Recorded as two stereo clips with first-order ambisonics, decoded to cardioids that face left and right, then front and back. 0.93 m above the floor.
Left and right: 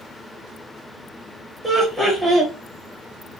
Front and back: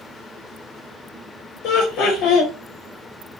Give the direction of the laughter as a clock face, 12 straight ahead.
12 o'clock.